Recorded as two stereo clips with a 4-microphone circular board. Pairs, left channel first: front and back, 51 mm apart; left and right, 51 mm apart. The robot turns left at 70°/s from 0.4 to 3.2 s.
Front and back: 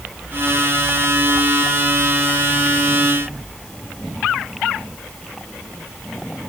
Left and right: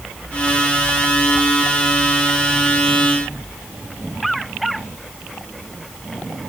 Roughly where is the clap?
No clap in this recording.